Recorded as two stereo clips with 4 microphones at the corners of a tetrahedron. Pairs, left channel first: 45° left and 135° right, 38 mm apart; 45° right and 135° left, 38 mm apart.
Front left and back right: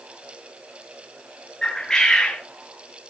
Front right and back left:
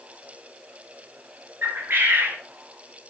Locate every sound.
1.6 s a bird: 120° left, 4 m